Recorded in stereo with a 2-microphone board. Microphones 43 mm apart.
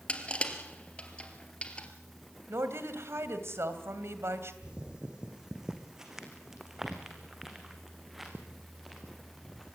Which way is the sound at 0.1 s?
25° left (ahead or behind).